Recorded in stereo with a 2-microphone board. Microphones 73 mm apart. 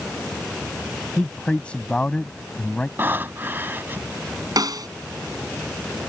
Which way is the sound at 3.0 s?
30° right (ahead or behind).